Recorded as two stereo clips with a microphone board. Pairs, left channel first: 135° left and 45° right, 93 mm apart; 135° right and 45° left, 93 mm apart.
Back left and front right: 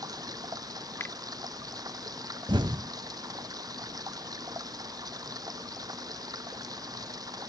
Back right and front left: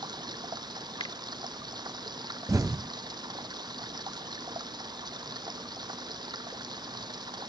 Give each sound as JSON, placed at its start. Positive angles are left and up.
{"t": 0.0, "sound": "running water", "azimuth_deg": 5}
{"t": 1.0, "sound": "a finger snap", "azimuth_deg": -160}
{"t": 2.5, "sound": "an explosion", "azimuth_deg": -10}